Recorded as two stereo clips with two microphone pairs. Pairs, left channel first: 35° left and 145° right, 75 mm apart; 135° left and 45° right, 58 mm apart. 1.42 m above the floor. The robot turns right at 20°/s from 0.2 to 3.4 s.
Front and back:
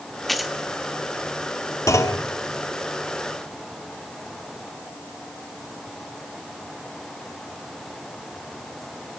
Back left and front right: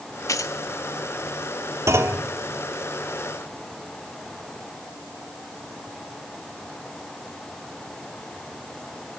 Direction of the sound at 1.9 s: 10° right.